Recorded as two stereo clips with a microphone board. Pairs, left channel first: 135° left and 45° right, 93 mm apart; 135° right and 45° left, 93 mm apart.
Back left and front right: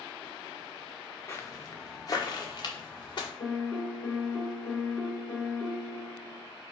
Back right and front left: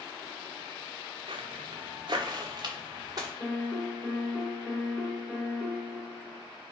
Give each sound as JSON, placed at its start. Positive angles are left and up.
{"t": 1.3, "sound": "footsteps", "azimuth_deg": 70, "distance_m": 0.7}
{"t": 3.4, "sound": "a piano", "azimuth_deg": 160, "distance_m": 1.7}